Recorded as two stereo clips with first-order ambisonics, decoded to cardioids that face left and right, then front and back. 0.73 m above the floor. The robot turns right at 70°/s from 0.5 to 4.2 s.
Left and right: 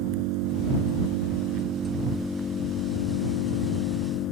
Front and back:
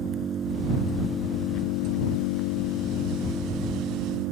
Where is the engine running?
120° right; by 4.3 s 140° left.